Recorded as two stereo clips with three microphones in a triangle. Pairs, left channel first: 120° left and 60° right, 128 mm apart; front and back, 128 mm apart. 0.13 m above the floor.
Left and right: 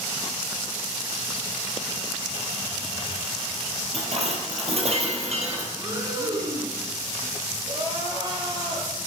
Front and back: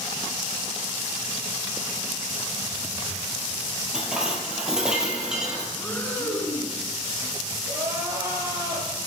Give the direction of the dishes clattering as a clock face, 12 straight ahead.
3 o'clock.